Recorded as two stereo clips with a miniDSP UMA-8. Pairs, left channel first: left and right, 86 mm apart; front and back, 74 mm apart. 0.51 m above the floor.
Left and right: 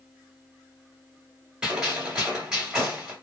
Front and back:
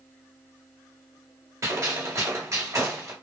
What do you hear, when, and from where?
1.6 s a gunshot: 165° right, 1.9 m